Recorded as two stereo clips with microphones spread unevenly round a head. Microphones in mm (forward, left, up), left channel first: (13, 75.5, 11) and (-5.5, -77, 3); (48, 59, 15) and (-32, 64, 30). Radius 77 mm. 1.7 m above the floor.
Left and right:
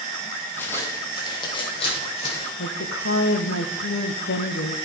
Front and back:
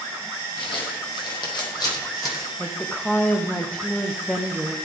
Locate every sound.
0.6 s footsteps: 5° left, 3.5 m; by 2.5 s 40° left, 5 m
2.6 s a woman speaking: 80° left, 1.1 m